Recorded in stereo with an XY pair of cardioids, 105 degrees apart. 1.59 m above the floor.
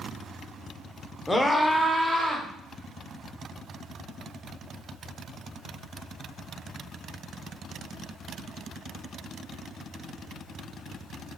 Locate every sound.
1.3 s a scream: 20° left, 0.5 m; by 2.5 s 20° right, 1.1 m